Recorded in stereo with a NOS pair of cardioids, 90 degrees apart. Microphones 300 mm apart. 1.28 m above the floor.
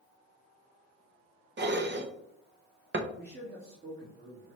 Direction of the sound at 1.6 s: 40° right.